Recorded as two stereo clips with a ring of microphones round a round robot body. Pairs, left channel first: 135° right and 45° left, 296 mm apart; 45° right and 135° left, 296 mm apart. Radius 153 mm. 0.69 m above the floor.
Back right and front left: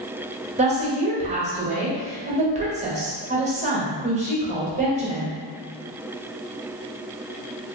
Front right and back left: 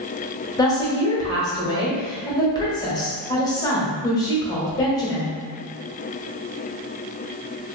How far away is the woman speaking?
About 1.0 m.